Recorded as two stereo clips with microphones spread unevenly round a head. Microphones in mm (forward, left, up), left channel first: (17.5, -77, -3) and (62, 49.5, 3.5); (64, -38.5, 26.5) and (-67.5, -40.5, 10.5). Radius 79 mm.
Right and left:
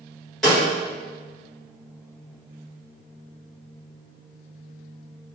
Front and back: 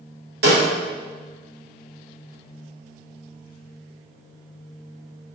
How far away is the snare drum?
About 1.4 m.